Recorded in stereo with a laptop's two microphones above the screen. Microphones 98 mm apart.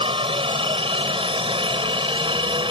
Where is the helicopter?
65° right (ahead or behind); by 2.7 s 60° right (ahead or behind).